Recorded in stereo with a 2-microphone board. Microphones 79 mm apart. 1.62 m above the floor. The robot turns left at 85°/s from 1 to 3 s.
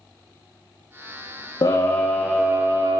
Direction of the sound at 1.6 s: 60° left.